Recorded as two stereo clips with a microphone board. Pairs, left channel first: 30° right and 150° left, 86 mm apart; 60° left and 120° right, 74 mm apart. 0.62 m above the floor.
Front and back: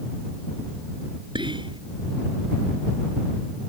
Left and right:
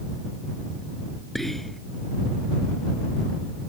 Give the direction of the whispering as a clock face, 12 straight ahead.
7 o'clock.